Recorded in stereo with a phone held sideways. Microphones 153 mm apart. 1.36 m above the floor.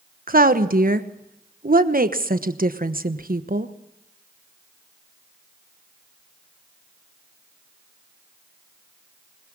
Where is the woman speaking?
80° right, 1.1 m.